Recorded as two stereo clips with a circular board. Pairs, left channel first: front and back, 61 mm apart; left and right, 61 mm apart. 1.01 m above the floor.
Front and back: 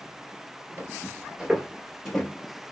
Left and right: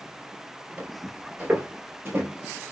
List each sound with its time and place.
0.8 s footsteps: 140° right, 1.2 m; by 2.3 s 80° right, 1.2 m